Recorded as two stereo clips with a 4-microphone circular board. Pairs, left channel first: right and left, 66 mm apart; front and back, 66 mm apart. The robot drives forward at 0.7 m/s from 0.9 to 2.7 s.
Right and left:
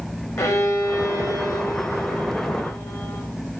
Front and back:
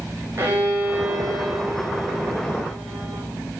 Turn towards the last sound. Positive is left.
turn(degrees=-155)